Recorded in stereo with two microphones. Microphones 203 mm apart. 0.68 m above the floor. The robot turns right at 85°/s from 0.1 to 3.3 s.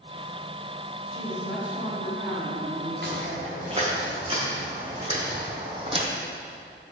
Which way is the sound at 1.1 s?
140° left.